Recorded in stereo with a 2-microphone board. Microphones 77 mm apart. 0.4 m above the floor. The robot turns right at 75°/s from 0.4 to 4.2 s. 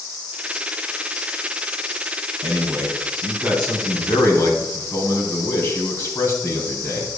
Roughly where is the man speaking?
Right.